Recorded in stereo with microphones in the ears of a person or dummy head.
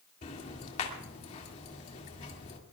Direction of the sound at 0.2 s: 35° left (ahead or behind).